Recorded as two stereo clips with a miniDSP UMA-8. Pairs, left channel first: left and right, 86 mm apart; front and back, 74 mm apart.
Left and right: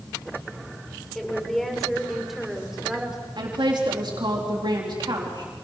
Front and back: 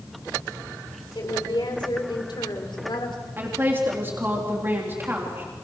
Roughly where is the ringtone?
I don't hear a ringtone.